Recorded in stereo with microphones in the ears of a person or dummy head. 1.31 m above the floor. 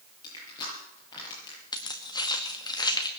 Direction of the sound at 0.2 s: 25° left (ahead or behind).